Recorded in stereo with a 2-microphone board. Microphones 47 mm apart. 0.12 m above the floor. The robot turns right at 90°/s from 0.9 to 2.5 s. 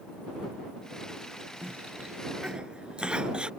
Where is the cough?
35° right (ahead or behind); by 3.5 s 20° right (ahead or behind).